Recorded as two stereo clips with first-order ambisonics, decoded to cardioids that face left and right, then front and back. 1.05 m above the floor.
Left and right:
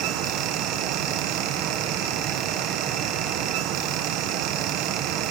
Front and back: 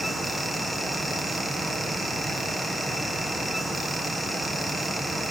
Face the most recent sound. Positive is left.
No sound to turn to.